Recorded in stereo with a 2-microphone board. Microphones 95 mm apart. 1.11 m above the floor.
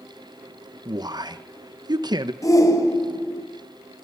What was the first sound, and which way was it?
A man speaking, 45° right (ahead or behind).